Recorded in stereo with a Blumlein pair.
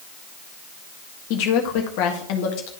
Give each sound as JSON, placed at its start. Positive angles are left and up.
{"t": 1.3, "sound": "a woman speaking", "azimuth_deg": 45, "distance_m": 1.5}